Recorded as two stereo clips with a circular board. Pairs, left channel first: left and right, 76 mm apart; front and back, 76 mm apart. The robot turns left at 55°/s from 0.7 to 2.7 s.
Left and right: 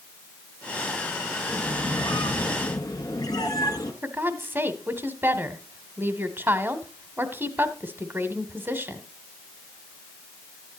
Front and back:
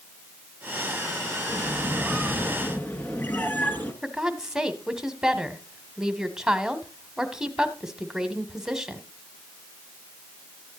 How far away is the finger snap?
No finger snap in this recording.